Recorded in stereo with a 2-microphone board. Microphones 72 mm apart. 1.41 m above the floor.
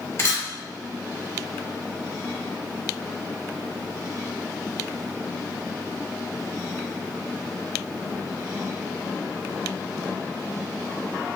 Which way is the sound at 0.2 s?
40° left (ahead or behind).